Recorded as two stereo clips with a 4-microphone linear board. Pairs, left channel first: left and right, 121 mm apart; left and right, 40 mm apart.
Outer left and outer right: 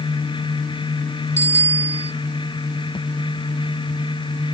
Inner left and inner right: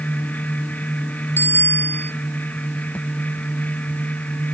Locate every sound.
1.4 s a bicycle bell: 65° left (ahead or behind)